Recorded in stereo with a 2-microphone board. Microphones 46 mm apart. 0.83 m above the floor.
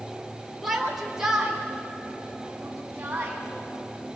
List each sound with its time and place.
0.6 s a shout: centre (ahead or behind), 3.5 m; by 3.4 s 30° right (ahead or behind), 6.5 m